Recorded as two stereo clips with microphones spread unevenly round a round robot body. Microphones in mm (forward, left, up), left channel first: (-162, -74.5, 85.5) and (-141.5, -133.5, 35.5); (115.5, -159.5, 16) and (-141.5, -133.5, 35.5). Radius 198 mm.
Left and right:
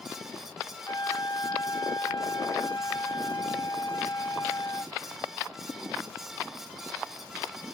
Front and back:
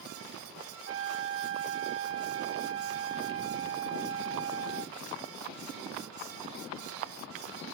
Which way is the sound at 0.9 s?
145° left.